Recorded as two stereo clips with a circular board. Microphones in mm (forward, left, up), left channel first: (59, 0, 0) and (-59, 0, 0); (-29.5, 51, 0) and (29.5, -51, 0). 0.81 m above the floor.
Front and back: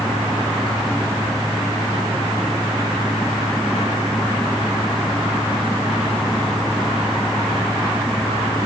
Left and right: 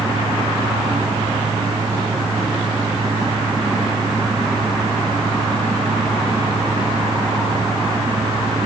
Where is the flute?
I don't hear a flute.